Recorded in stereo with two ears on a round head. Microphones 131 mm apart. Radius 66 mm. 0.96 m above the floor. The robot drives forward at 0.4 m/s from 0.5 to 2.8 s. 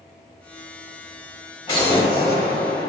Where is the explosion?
35° left (ahead or behind), 2 m; by 2.9 s 30° left (ahead or behind), 2.5 m.